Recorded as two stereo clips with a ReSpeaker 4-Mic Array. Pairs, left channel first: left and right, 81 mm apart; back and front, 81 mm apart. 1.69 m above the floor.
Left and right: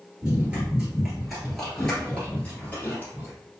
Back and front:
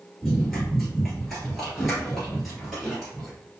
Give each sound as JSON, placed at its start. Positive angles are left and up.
{"t": 0.2, "sound": "running footsteps", "azimuth_deg": -100, "distance_m": 1.7}